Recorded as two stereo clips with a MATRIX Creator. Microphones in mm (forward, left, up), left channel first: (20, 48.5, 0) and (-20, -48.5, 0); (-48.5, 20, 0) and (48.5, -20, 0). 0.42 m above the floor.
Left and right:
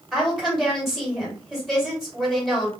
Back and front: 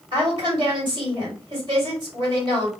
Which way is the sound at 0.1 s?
25° right.